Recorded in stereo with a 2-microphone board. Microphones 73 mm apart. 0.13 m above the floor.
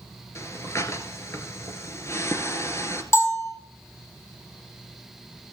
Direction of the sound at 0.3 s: 40° left (ahead or behind).